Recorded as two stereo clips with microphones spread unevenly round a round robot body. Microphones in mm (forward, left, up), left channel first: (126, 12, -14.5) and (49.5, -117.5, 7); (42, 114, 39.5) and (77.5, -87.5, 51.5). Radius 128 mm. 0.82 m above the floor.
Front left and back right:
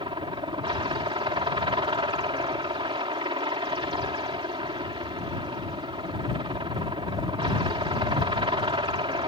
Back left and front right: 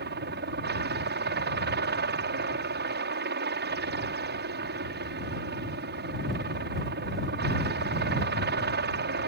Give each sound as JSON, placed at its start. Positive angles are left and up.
{"t": 0.0, "sound": "a helicopter", "azimuth_deg": -75}